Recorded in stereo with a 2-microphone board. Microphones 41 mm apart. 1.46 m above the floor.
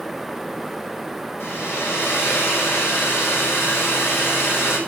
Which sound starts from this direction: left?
A hair dryer, at 1.4 s.